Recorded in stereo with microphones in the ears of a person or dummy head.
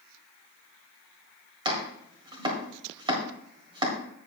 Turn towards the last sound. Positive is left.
turn(degrees=-25)  # may be behind; listen again after turning